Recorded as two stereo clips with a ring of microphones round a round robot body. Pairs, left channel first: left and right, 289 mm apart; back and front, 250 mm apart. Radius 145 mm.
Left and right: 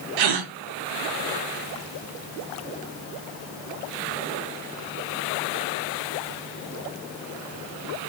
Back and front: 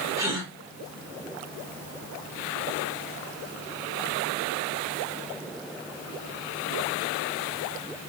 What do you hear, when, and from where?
0.2 s a gasp: 80° right, 0.6 m